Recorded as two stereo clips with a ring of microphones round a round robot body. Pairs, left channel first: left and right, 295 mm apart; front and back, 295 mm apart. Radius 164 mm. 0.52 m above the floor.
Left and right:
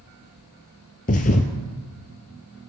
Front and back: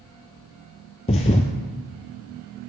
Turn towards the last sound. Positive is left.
turn(degrees=55)